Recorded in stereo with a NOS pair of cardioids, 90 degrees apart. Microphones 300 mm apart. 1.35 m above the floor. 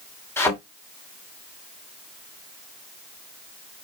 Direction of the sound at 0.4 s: 10° left.